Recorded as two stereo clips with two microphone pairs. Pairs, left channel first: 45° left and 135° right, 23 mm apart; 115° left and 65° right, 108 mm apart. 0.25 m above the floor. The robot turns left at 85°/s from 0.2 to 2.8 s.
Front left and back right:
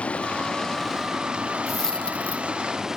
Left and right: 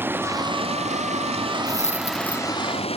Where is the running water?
10° left; by 3.0 s 150° left.